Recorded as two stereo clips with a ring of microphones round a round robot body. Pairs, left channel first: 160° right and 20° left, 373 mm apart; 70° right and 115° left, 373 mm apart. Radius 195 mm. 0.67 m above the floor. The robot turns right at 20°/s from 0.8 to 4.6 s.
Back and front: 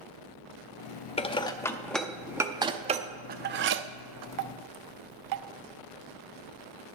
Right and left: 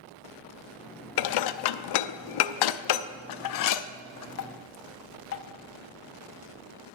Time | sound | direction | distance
1.2 | dishes clattering | 85° right | 0.6 m